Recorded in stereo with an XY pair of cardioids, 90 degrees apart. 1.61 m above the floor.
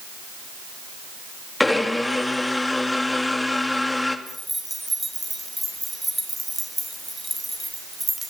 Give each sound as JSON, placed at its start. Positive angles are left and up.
{"t": 1.6, "sound": "a blender", "azimuth_deg": 15, "distance_m": 2.5}
{"t": 4.3, "sound": "keys jangling", "azimuth_deg": -5, "distance_m": 4.5}